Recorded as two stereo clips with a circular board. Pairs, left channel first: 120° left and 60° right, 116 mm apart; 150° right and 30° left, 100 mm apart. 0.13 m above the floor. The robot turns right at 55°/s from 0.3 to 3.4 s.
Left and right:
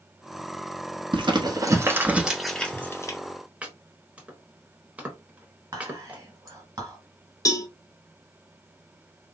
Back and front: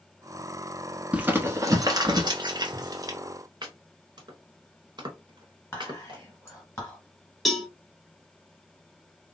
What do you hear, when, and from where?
1.1 s crumpling: 40° right, 0.7 m; by 3.2 s 70° left, 0.7 m
3.6 s chopping: 15° left, 1.0 m
5.7 s whispering: 100° right, 1.9 m
7.5 s a cowbell: 120° left, 0.6 m